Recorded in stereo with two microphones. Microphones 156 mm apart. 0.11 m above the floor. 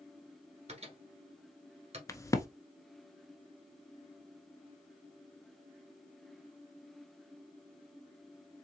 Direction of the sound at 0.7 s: 40° right (ahead or behind).